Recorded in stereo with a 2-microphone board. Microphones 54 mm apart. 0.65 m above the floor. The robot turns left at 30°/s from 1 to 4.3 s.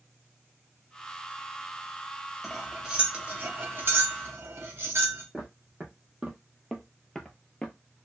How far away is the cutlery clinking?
About 0.7 m.